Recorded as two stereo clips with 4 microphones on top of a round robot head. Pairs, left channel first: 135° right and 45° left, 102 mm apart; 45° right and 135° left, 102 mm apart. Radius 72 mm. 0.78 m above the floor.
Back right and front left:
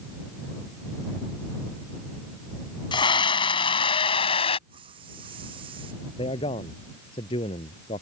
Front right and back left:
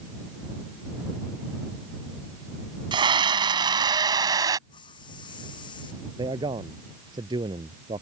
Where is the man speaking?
175° right.